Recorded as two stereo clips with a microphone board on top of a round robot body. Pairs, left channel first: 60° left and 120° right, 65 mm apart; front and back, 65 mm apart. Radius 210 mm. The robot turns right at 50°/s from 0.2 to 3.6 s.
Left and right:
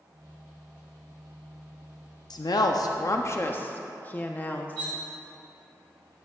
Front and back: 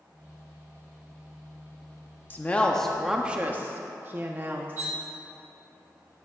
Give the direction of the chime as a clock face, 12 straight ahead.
No chime in this recording.